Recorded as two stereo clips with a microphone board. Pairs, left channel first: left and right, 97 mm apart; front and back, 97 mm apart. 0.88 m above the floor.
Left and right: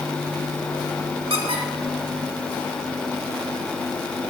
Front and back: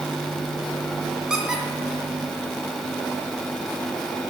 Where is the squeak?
100° right, 1.9 m.